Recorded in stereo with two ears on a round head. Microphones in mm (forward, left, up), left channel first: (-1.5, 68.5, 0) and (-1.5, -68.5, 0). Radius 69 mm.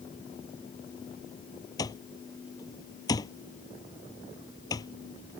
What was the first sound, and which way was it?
An alarm clock, 25° left (ahead or behind).